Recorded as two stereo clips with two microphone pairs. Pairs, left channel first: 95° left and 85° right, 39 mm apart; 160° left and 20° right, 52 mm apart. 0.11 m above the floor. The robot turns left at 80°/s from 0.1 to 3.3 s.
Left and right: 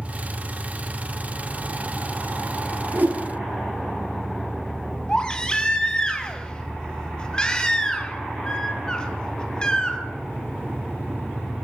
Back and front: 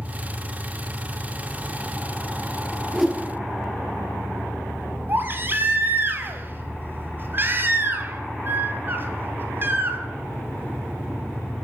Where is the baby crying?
25° left, 1.4 m.